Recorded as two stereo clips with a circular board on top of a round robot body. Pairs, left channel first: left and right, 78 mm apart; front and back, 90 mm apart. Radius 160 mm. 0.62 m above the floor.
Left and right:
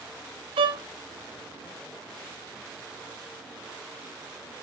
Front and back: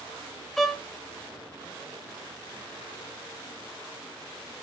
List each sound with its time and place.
0.6 s a violin: 90° right, 0.6 m